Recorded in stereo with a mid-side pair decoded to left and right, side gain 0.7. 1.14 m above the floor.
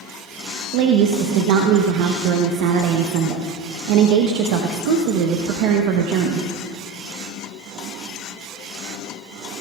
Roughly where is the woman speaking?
Right.